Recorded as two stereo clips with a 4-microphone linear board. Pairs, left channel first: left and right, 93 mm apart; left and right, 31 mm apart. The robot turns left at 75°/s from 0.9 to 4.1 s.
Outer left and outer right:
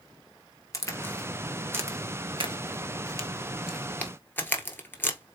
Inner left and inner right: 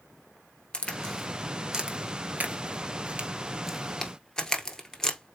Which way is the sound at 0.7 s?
35° left (ahead or behind).